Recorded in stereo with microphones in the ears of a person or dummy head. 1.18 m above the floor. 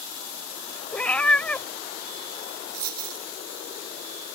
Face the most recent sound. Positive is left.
turn(degrees=-55)  # may be behind; listen again after turning